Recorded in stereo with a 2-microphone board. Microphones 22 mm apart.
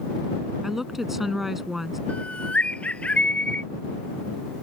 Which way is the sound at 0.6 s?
10° right (ahead or behind).